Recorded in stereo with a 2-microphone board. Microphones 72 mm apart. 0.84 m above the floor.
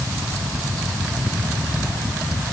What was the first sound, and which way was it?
Only background noise.